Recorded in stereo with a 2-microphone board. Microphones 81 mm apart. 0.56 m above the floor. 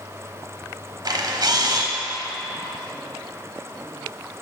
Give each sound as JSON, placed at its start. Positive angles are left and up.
{"t": 1.1, "sound": "a camera shutter", "side_deg": -55, "distance_m": 0.7}